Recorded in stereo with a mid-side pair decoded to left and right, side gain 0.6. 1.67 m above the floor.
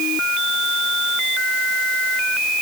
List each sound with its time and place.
Only background noise.